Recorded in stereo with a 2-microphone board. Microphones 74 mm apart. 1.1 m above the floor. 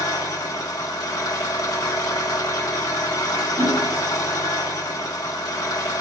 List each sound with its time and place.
0.0 s an engine running: 60° left (ahead or behind), 1.1 m
3.6 s hammering: 45° right (ahead or behind), 0.9 m